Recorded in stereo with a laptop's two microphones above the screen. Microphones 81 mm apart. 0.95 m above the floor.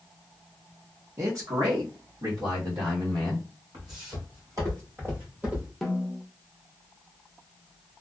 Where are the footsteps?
55° right (ahead or behind), 2 m; by 5.7 s 15° right (ahead or behind), 1.2 m.